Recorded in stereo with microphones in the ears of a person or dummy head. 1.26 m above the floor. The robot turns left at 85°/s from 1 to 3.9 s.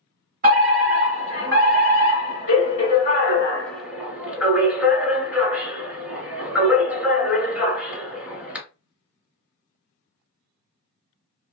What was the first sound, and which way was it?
A fire alarm, 120° right.